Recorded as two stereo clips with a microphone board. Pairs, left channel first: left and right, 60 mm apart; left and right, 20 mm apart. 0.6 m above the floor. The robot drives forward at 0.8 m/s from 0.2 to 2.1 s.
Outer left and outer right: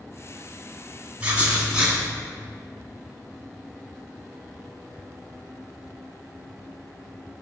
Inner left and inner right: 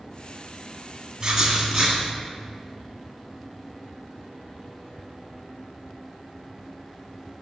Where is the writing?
20° right (ahead or behind), 1.2 m; by 2.0 s 15° right (ahead or behind), 1.8 m.